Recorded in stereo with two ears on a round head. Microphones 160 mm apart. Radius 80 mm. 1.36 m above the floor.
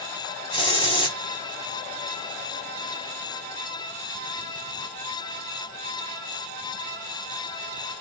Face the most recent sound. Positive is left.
turn(degrees=25)  # may be behind; listen again after turning